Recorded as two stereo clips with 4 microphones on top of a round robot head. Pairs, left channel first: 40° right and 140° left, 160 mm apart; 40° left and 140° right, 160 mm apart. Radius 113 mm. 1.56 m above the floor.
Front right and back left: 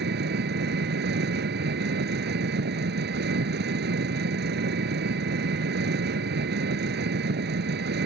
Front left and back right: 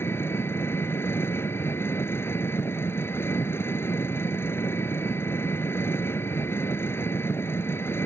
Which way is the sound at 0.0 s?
115° left.